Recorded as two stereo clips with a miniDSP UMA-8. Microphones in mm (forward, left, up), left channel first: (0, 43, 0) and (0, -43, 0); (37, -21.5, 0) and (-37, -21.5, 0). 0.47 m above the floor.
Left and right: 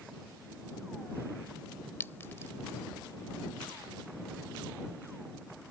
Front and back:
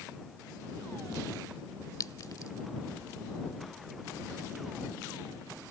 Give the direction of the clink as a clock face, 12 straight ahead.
11 o'clock.